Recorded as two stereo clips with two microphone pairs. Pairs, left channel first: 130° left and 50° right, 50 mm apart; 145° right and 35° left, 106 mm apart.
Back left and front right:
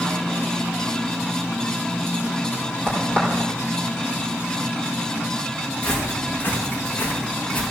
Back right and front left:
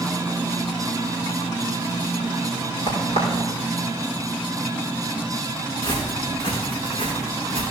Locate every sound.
2.9 s a crack: 165° right, 4.5 m
5.8 s footsteps: 170° left, 3 m; by 7.6 s 175° left, 4 m